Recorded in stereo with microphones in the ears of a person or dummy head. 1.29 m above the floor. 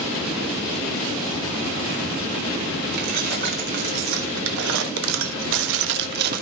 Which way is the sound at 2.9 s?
55° right (ahead or behind).